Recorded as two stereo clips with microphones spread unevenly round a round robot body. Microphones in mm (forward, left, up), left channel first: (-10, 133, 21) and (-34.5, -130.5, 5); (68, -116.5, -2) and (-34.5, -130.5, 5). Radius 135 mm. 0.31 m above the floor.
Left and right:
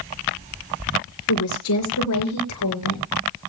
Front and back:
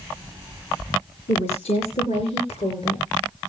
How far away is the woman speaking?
About 4.5 m.